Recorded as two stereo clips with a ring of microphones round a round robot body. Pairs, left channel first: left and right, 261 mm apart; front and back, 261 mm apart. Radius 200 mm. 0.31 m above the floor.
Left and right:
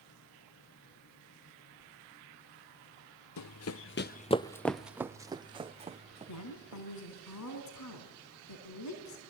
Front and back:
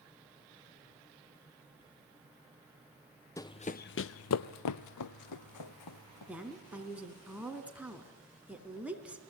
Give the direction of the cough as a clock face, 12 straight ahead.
No cough in this recording.